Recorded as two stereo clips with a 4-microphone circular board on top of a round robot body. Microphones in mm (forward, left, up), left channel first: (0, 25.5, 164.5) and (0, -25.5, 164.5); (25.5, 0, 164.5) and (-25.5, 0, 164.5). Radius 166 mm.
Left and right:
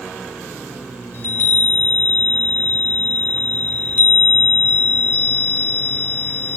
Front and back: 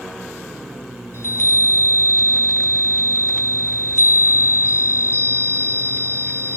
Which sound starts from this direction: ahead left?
A chime, at 1.1 s.